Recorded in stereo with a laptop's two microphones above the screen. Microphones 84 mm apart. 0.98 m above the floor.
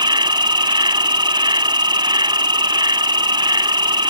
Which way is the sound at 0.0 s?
70° right (ahead or behind).